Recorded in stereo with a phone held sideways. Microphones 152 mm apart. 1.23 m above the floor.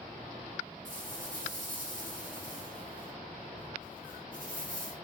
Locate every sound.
0.8 s a rattle: 60° right (ahead or behind), 4.5 m